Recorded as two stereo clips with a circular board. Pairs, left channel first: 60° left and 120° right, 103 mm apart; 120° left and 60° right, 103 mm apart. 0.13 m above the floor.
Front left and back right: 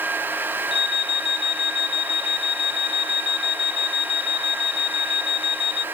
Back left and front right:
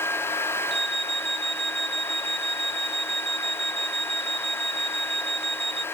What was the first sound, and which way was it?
An alarm, 30° left.